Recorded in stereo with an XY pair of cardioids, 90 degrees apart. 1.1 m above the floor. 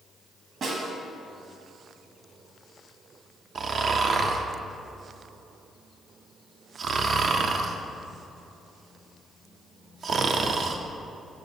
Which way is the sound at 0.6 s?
60° right.